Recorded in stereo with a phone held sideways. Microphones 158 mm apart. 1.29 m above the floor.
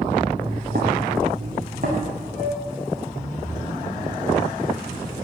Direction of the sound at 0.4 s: 65° right (ahead or behind).